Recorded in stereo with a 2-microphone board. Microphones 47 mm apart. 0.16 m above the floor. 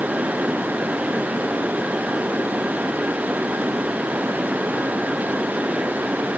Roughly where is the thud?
I don't hear a thud.